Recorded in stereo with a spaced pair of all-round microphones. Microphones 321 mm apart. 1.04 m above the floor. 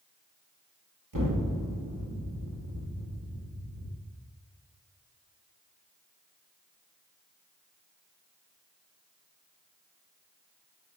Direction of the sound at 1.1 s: 80° right.